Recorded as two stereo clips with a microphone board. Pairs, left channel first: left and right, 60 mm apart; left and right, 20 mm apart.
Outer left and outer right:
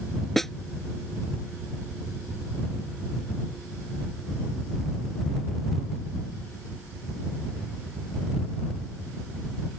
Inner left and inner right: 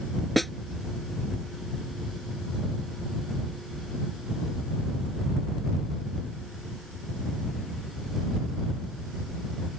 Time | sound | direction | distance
0.4 | a snare drum | 5° left (ahead or behind) | ?